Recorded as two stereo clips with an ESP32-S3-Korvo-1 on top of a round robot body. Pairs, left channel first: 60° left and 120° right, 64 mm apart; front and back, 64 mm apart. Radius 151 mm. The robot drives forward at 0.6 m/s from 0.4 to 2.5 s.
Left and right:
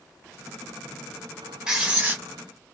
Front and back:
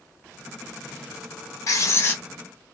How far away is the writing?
About 0.8 m.